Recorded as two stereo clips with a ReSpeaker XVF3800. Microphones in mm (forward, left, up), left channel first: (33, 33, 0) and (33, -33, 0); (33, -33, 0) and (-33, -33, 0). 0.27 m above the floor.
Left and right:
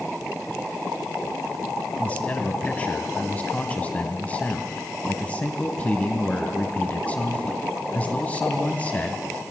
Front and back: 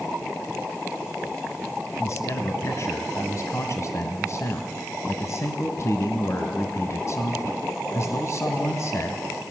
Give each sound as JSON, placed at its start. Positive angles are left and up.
{"t": 2.0, "sound": "a man speaking", "azimuth_deg": 25, "distance_m": 1.7}